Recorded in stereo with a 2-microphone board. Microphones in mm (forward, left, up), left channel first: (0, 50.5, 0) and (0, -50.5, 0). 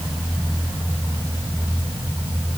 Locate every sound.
Only background noise.